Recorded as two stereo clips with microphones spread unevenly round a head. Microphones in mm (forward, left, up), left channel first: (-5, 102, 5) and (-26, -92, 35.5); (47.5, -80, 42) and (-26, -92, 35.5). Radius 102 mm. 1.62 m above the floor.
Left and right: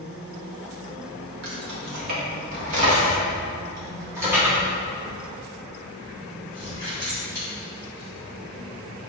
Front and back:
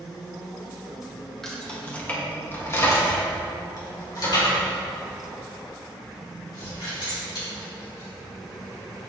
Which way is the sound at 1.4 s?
75° right.